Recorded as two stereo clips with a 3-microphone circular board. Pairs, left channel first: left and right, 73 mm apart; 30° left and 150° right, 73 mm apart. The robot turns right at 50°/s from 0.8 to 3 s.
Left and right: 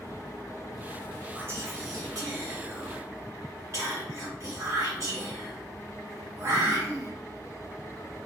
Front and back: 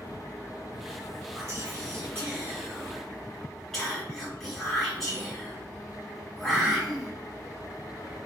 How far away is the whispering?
About 1.5 m.